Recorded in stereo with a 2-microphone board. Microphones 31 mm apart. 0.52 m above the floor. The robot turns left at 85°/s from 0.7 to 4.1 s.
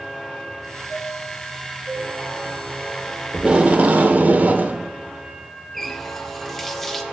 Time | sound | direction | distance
0.9 | a chime | 65° left | 4.5 m
3.3 | tape being pulled | 30° right | 0.8 m
5.7 | a running tap | 10° left (ahead or behind) | 0.8 m